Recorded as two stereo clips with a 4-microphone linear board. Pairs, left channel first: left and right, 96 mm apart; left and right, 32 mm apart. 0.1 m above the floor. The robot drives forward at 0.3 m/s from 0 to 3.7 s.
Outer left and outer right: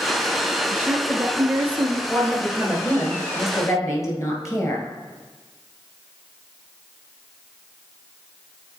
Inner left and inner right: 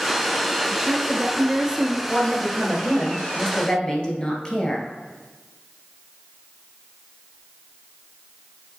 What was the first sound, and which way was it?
A woman speaking, 20° right (ahead or behind).